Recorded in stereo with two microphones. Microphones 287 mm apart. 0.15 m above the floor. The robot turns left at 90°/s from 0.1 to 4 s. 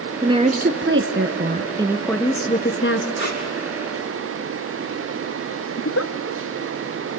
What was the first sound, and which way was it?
A woman speaking, 15° right.